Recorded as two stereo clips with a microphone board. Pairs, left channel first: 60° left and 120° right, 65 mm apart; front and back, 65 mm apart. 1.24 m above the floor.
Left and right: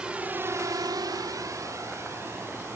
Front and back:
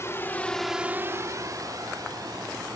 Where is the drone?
45° right; by 2.8 s 170° right.